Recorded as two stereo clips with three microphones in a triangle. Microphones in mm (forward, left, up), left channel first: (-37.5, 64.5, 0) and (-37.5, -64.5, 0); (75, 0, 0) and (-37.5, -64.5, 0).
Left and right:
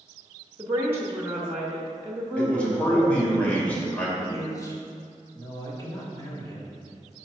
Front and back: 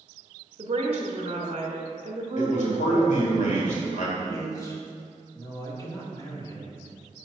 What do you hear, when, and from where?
0.6 s a woman speaking: 155° right, 0.9 m
2.4 s a man speaking: 10° left, 1.7 m
4.2 s a man speaking: 60° left, 1.1 m